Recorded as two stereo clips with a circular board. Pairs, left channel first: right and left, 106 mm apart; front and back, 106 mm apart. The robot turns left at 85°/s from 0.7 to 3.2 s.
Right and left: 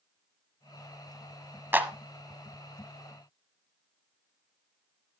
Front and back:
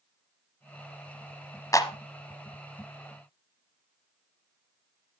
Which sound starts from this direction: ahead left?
A clap, at 1.7 s.